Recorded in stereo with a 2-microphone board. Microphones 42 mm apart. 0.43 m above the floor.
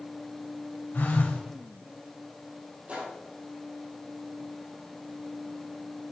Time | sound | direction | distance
0.9 | a phone buzzing | 55° left (ahead or behind) | 1.5 m
2.9 | a gunshot | 35° right (ahead or behind) | 2.5 m